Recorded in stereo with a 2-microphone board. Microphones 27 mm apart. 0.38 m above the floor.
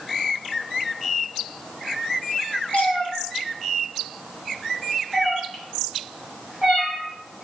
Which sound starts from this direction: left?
A cat meowing, at 2.7 s.